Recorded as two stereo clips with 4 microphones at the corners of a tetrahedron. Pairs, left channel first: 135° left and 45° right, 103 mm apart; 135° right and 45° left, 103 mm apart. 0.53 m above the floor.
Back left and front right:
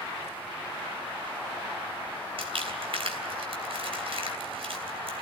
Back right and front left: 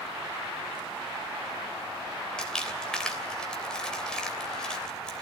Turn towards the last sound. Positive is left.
turn(degrees=-55)